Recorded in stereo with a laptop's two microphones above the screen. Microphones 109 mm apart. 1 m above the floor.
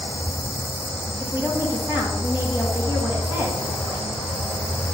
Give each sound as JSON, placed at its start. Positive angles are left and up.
{"t": 1.2, "sound": "a woman speaking", "side_deg": -20, "distance_m": 1.8}